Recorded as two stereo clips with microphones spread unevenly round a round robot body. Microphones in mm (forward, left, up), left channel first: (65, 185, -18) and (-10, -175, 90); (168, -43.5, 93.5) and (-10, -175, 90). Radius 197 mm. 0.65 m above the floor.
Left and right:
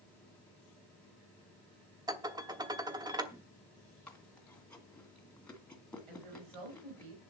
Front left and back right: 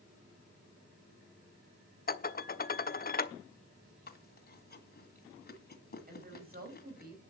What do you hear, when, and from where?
2.1 s dishes clattering: 15° right, 0.9 m
4.1 s chewing: 10° right, 2.0 m
6.1 s a woman speaking: 100° right, 5 m